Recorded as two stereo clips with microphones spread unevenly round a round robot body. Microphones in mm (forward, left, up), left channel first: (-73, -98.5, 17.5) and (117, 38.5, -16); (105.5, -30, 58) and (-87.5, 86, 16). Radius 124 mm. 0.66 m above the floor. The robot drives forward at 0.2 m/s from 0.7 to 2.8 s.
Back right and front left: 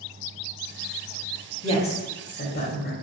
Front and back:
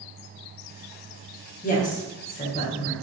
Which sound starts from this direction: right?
A woman speaking, at 1.6 s.